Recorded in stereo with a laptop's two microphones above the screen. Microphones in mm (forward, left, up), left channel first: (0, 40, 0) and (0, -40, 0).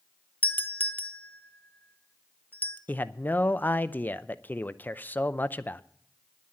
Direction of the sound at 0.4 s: 20° left (ahead or behind).